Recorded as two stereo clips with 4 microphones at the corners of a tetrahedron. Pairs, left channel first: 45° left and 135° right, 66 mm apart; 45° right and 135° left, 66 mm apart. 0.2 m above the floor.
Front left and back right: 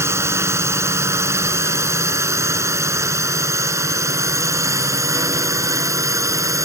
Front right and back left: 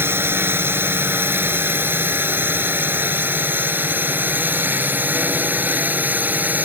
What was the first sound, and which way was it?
A drone, 175° right.